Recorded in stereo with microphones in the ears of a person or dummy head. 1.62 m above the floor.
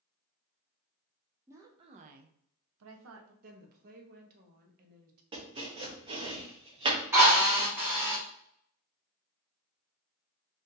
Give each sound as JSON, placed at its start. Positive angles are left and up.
{"t": 1.5, "sound": "a woman speaking", "side_deg": -15, "distance_m": 0.7}
{"t": 3.4, "sound": "a woman speaking", "side_deg": -50, "distance_m": 0.8}
{"t": 5.3, "sound": "chopping", "side_deg": -30, "distance_m": 0.7}
{"t": 7.1, "sound": "a drill", "side_deg": -15, "distance_m": 1.0}